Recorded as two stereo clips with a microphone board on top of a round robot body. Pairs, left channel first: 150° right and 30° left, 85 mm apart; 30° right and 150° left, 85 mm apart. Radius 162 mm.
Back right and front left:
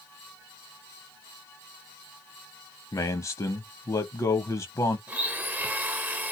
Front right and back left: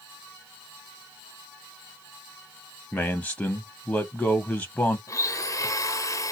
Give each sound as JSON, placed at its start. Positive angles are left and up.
{"t": 2.9, "sound": "a man speaking", "azimuth_deg": -105, "distance_m": 0.7}
{"t": 5.1, "sound": "a blender", "azimuth_deg": -25, "distance_m": 0.9}